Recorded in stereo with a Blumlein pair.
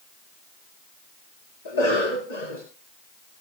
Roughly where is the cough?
Ahead left.